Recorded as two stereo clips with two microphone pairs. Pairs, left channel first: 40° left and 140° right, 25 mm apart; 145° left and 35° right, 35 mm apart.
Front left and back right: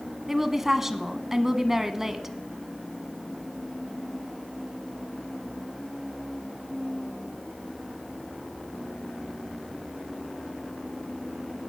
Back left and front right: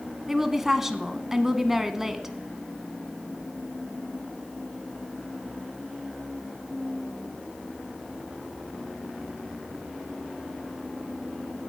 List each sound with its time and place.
0.3 s a woman speaking: 95° right, 1.1 m